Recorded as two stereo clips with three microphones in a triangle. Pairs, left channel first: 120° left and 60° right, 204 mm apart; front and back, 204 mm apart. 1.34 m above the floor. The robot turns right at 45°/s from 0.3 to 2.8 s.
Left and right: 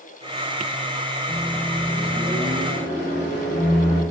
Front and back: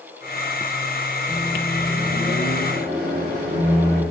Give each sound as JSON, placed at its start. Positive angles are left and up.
{"t": 1.3, "sound": "a microwave", "azimuth_deg": 75, "distance_m": 1.2}